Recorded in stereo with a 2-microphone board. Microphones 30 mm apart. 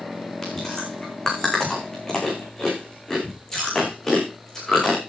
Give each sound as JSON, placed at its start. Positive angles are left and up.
{"t": 0.4, "sound": "chewing", "side_deg": 20, "distance_m": 5.5}